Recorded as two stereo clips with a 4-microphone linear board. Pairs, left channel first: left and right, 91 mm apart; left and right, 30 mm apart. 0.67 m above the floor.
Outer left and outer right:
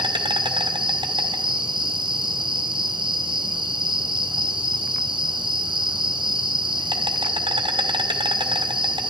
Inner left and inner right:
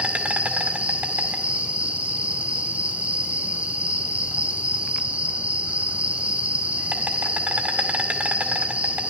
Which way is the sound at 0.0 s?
65° right (ahead or behind).